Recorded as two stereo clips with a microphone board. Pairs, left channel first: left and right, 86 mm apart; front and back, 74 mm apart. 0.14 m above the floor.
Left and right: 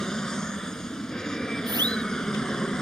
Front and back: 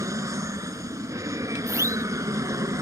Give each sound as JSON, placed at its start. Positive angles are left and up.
{"t": 0.0, "sound": "an aircraft", "azimuth_deg": 170}
{"t": 1.7, "sound": "a siren", "azimuth_deg": -130}